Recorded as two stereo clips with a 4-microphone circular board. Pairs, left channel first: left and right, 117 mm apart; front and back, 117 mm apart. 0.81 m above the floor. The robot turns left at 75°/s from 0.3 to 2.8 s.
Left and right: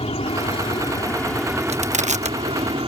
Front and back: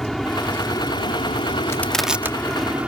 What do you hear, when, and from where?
0.0 s an aircraft: 85° left; by 2.9 s 105° right
1.7 s crushing: 65° right; by 2.4 s 115° right